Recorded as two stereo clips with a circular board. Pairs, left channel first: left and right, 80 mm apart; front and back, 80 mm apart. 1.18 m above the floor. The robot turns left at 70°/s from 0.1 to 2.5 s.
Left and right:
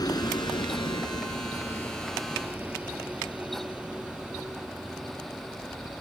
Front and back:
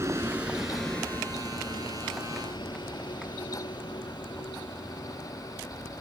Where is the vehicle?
125° left; by 6.0 s 5° right.